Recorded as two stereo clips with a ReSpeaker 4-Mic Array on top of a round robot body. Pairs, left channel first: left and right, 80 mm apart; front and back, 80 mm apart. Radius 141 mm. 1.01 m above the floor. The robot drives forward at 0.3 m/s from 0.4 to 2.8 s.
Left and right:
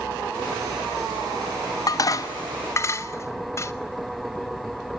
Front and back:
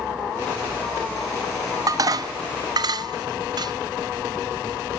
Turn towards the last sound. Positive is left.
turn(degrees=145)